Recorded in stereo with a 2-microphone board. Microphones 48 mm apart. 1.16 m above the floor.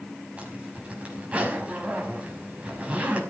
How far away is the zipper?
About 5 m.